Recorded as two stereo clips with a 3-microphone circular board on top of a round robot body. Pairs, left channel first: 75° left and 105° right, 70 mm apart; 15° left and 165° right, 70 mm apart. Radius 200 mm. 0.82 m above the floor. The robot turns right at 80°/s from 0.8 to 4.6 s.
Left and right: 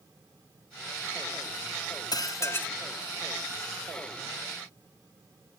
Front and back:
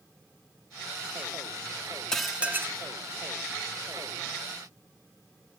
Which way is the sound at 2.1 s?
95° left.